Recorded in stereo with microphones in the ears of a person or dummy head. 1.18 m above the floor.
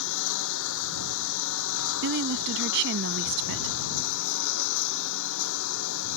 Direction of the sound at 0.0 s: 70° left (ahead or behind).